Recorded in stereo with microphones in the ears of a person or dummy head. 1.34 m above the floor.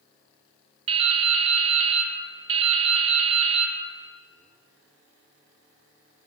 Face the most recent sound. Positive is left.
turn(degrees=-30)  # may be behind; listen again after turning